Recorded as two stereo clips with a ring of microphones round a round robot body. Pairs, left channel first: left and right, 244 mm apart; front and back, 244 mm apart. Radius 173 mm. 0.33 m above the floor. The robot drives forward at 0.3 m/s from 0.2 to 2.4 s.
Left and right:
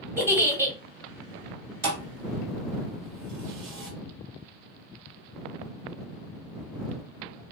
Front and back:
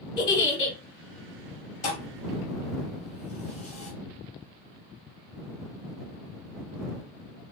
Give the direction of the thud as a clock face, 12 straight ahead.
3 o'clock.